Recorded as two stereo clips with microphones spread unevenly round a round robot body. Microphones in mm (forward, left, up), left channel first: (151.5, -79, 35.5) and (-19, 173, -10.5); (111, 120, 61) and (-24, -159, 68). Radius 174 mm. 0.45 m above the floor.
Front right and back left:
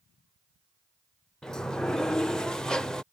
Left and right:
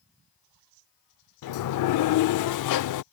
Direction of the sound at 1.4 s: 35° left.